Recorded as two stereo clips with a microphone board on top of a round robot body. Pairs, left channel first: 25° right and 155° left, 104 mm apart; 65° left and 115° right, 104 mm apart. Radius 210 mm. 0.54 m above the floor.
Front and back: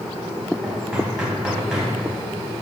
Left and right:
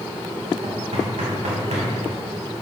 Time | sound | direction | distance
0.6 | knocking | 120° right | 3.5 m